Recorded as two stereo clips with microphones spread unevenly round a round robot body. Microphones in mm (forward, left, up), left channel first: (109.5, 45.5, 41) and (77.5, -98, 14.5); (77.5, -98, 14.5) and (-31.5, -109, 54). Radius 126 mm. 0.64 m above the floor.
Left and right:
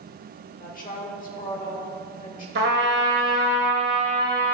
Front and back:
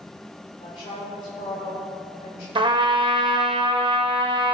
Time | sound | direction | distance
0.6 | a woman speaking | 50° left | 1.8 m
2.5 | a trumpet | 145° right | 0.7 m